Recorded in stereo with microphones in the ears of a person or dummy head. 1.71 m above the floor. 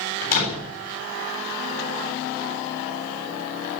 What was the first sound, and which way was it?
A door slam, 45° left (ahead or behind).